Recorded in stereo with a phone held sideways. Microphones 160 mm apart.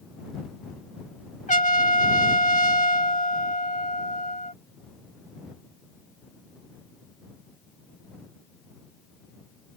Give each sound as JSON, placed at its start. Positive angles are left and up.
{"t": 1.5, "sound": "a trumpet", "side_deg": 50}